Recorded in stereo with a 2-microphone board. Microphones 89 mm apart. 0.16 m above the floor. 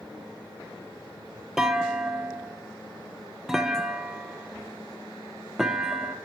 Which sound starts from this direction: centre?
A clunk, at 1.6 s.